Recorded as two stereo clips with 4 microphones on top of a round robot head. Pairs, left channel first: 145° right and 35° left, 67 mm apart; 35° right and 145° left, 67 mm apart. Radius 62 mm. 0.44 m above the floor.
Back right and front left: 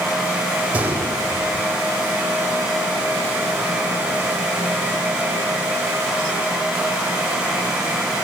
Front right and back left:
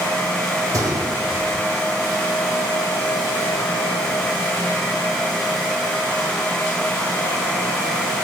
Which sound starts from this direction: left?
A gunshot, at 0.7 s.